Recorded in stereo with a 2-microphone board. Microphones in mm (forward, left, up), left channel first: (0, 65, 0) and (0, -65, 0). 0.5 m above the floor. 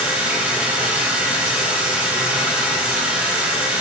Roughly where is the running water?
Centre.